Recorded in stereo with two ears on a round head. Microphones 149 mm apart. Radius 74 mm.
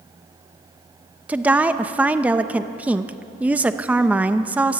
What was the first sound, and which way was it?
A woman speaking, 10° right (ahead or behind).